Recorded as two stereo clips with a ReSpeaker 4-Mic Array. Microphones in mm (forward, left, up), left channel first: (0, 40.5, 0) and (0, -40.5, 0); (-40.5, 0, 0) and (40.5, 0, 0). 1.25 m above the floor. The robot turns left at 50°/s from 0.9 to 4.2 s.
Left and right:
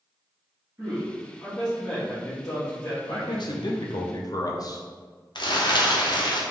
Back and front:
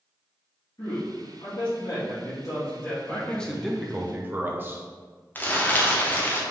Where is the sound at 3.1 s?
115° left, 0.6 m; by 4.8 s 60° left, 0.6 m.